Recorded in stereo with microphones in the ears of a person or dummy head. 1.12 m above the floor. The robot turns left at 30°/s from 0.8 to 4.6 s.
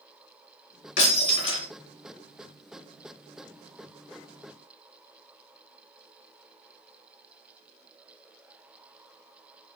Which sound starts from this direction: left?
Breaking glass, at 1.0 s.